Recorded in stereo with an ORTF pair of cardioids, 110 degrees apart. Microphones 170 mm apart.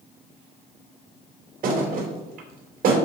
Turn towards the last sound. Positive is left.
turn(degrees=-60)